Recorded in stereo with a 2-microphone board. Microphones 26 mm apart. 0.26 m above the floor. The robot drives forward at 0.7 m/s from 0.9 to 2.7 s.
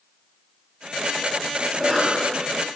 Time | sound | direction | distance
1.7 | a cough | 40° right (ahead or behind) | 4 m